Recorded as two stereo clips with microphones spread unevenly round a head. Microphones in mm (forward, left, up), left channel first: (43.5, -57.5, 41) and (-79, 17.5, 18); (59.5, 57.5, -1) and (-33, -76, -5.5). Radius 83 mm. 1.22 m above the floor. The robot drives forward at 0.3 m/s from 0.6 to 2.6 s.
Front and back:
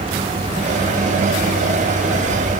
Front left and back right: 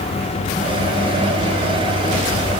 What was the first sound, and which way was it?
Only background noise.